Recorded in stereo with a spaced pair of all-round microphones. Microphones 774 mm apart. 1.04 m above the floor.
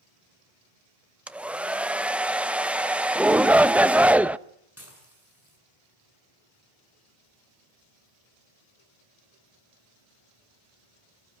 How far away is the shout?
About 0.6 m.